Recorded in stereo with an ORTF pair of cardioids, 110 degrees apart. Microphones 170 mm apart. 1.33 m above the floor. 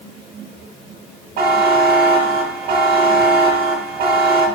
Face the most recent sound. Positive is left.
turn(degrees=-70)